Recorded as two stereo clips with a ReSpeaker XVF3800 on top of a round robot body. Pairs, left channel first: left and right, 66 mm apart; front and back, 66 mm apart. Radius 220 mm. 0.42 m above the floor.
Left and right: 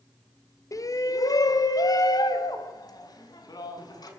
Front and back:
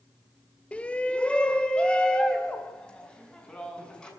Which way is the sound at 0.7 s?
70° left.